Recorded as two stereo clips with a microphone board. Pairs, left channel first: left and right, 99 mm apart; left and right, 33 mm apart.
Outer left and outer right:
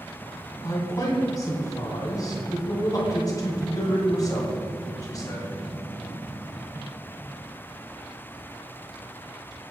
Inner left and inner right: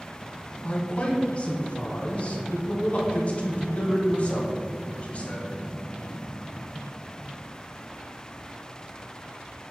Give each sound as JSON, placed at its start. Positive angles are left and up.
{"t": 0.6, "sound": "a man speaking", "side_deg": 40, "distance_m": 2.5}